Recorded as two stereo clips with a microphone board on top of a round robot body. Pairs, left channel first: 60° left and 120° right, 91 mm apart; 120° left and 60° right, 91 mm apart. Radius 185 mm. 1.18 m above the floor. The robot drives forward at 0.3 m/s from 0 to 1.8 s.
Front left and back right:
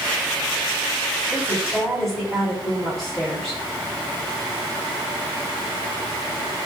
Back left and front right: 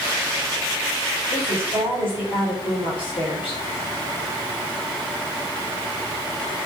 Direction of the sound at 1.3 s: 145° left.